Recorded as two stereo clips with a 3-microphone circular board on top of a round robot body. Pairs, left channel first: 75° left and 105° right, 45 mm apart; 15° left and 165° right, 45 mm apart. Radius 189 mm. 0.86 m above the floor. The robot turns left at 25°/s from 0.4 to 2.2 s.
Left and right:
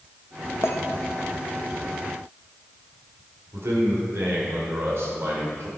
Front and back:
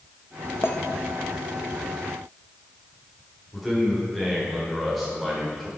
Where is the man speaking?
75° right, 4.5 m.